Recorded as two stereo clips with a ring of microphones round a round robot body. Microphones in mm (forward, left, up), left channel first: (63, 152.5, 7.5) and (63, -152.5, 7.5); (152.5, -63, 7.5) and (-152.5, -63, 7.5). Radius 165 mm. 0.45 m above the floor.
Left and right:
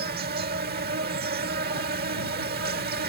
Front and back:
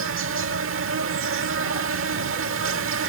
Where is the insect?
145° right.